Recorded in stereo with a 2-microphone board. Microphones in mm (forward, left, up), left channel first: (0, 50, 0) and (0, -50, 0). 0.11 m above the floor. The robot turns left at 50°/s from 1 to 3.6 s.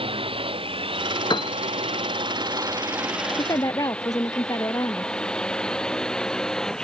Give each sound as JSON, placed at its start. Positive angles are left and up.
{"t": 0.0, "sound": "a drone", "side_deg": -65}
{"t": 1.3, "sound": "a piano", "side_deg": 50}
{"t": 3.4, "sound": "a woman speaking", "side_deg": 45}